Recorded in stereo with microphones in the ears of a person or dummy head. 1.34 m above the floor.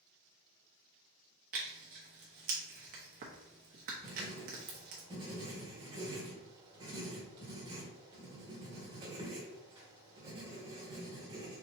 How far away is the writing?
About 1.2 m.